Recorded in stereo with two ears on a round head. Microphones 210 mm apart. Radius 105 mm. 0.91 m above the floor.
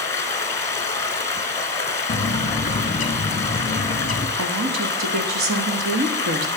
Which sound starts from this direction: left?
A bird, at 2.1 s.